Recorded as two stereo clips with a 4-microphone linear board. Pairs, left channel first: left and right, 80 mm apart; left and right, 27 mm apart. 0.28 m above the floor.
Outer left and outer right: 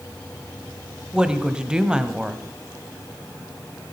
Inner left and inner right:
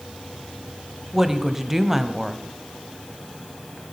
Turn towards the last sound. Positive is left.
turn(degrees=-10)  # may be behind; listen again after turning